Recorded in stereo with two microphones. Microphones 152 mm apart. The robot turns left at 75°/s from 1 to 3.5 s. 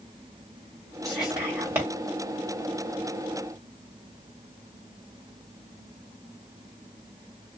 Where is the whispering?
Centre (ahead or behind), 1.2 m; by 1.9 s 20° right (ahead or behind), 1.2 m.